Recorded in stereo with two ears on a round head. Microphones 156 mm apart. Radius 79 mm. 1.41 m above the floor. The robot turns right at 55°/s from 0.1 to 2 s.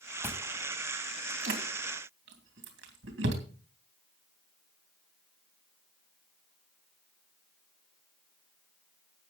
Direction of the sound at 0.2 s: 15° left (ahead or behind).